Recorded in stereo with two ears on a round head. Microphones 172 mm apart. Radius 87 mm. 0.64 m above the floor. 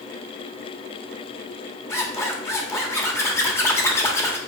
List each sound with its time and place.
1.9 s a zipper: 15° left (ahead or behind), 1.5 m